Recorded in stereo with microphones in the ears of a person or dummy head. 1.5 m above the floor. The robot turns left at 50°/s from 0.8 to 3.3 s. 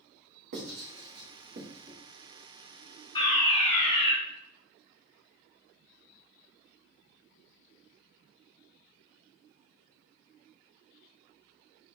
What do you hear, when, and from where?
0.5 s writing: 60° right (ahead or behind), 1.4 m; by 1.9 s 25° right (ahead or behind), 1.4 m
3.1 s a fire alarm: 20° left (ahead or behind), 1.1 m; by 4.1 s 30° left (ahead or behind), 1.1 m